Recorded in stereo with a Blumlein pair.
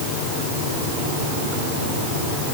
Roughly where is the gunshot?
I don't hear a gunshot.